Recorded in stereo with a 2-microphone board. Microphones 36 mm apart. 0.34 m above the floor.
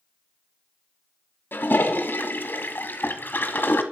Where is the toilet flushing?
60° left (ahead or behind), 1.4 m.